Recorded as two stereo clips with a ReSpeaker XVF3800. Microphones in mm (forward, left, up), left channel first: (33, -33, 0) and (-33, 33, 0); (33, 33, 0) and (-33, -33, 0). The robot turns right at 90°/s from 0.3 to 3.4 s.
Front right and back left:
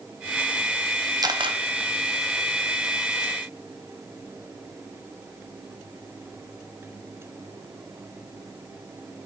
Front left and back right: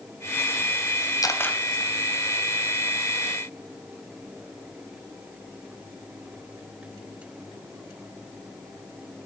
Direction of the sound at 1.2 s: 90° left.